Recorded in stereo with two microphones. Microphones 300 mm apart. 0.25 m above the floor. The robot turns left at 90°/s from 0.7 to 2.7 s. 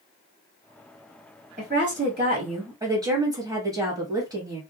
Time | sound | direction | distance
1.6 | a woman speaking | 55° right | 1.4 m